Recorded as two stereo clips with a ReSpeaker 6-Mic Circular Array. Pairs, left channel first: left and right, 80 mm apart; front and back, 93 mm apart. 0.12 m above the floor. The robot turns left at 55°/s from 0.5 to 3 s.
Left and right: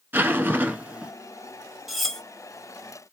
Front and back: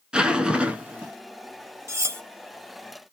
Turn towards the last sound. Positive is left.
turn(degrees=120)